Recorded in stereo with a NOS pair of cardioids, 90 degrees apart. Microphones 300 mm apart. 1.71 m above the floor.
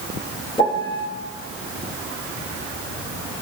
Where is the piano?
15° left, 2 m.